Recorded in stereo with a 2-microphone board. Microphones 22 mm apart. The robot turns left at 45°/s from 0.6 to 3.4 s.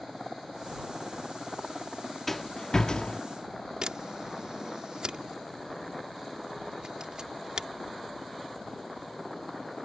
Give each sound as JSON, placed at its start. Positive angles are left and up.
{"t": 2.3, "sound": "a rattle", "side_deg": 10}
{"t": 3.8, "sound": "a camera shutter", "side_deg": -45}